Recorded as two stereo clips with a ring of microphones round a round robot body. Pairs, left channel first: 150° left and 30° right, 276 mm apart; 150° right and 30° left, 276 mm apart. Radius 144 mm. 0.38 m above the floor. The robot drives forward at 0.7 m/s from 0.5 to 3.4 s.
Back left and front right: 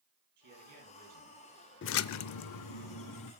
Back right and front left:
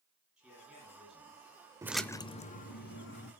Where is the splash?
105° left, 0.5 m; by 3.3 s 160° left, 1.3 m.